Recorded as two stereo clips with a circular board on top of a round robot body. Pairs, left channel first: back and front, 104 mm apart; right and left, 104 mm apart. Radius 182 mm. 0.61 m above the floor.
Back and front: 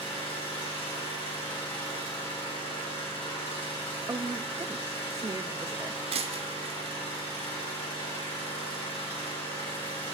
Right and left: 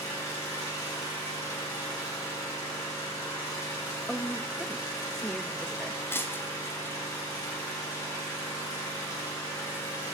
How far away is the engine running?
About 4 m.